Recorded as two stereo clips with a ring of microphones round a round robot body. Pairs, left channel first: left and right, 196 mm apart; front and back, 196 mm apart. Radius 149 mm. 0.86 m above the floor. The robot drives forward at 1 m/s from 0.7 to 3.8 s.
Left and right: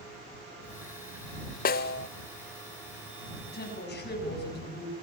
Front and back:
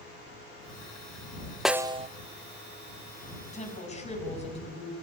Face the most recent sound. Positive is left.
turn(degrees=55)